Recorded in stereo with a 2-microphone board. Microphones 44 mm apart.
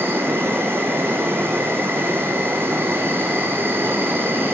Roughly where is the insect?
Right.